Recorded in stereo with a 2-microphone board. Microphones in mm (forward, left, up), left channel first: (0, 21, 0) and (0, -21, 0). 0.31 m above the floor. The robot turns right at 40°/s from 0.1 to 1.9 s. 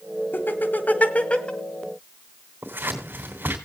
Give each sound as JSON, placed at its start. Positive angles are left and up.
{"t": 0.3, "sound": "laughter", "side_deg": 50, "distance_m": 1.8}
{"t": 2.6, "sound": "scissors", "side_deg": -55, "distance_m": 3.0}